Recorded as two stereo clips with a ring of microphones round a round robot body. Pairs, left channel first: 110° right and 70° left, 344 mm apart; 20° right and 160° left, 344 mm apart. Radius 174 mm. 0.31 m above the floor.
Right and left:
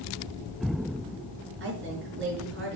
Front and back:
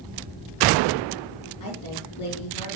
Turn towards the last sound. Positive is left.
turn(degrees=10)